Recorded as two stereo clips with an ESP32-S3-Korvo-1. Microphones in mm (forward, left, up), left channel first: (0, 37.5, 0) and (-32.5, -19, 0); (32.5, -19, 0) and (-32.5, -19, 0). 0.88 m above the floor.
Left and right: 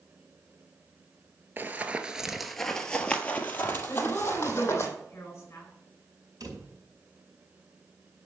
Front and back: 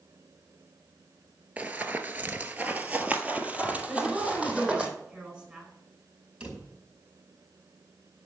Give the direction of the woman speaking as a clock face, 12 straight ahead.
8 o'clock.